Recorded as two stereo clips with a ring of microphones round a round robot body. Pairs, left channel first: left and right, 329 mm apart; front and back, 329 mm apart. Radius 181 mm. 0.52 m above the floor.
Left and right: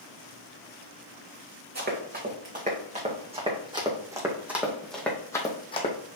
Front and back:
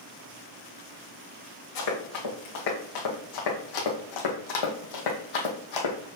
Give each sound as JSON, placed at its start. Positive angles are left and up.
{"t": 1.8, "sound": "running footsteps", "azimuth_deg": -30, "distance_m": 3.0}